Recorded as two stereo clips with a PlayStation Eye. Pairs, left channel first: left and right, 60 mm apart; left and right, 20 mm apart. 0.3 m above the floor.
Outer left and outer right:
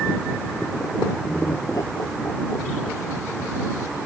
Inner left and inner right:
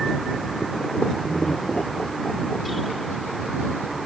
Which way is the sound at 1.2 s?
80° left.